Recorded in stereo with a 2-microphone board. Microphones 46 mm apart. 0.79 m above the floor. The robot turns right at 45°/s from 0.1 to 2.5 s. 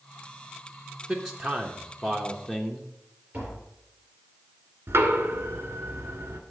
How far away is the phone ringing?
I don't hear a phone ringing.